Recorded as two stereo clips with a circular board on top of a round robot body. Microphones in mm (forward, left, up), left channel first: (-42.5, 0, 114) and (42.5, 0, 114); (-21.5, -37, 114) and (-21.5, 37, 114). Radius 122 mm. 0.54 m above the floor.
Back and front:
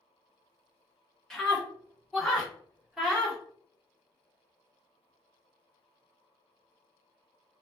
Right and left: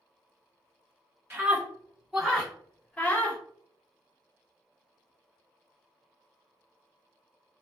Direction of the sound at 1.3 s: 100° left.